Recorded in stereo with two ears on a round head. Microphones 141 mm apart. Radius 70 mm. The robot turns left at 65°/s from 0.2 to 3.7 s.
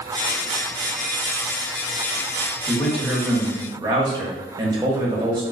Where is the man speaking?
25° left, 0.8 m; by 5.4 s 45° right, 0.8 m.